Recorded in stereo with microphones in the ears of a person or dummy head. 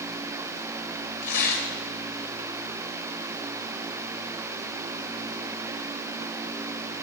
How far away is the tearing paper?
About 1.9 m.